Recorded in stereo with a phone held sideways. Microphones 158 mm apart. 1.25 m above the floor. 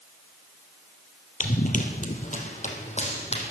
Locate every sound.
1.4 s running footsteps: 50° left (ahead or behind), 1.9 m; by 3.5 s 40° left (ahead or behind), 3.5 m